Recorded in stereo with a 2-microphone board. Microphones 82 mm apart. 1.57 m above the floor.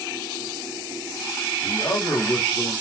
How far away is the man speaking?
About 3 m.